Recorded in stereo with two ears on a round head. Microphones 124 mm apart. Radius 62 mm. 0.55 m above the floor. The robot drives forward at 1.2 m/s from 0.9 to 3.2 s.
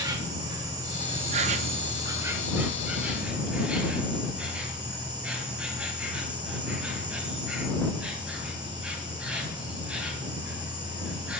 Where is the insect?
25° right (ahead or behind), 0.8 m; by 11.4 s 10° right (ahead or behind), 2 m.